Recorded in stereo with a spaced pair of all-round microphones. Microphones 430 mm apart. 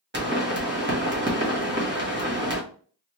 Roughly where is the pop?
Right.